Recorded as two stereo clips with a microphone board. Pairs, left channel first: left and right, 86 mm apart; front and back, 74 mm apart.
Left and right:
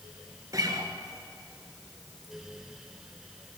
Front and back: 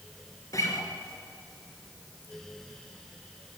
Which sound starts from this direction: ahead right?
A guitar, at 0.5 s.